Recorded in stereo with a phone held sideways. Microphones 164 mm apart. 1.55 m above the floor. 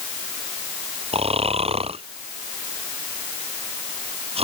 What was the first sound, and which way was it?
Snoring, 40° right (ahead or behind).